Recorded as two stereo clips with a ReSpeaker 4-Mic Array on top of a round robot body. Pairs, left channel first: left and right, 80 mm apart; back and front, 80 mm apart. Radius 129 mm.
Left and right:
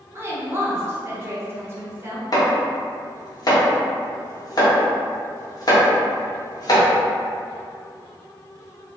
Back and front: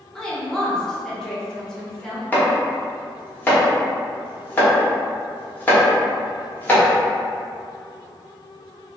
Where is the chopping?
115° left, 1.2 m.